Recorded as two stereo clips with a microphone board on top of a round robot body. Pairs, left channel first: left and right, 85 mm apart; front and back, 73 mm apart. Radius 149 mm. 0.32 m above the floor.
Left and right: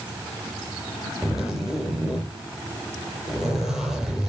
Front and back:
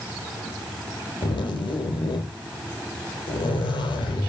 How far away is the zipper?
About 4.5 m.